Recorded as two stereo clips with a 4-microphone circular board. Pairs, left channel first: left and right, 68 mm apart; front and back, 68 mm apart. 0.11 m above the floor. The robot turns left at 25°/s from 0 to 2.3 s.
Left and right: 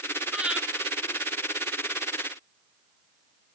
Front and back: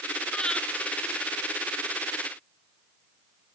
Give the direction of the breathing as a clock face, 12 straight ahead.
2 o'clock.